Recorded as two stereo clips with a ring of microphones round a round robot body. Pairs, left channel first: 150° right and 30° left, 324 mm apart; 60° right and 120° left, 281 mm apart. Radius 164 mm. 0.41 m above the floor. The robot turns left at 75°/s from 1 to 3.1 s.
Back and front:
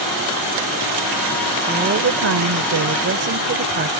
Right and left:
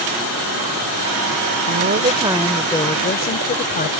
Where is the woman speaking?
95° left; by 3.9 s 15° right.